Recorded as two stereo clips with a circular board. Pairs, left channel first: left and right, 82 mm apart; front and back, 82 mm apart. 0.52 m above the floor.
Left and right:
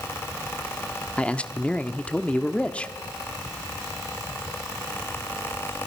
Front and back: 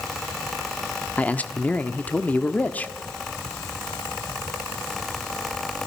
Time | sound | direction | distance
1.2 | a man speaking | 40° left | 0.9 m